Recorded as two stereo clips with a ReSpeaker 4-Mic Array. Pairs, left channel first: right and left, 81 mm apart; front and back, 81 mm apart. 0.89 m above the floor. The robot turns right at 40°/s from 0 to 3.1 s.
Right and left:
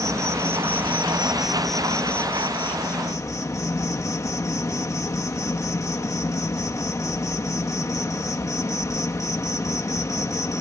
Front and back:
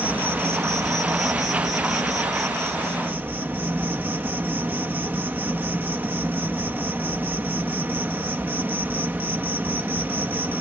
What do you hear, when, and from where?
0.0 s an insect: 115° left; by 10.6 s 120° right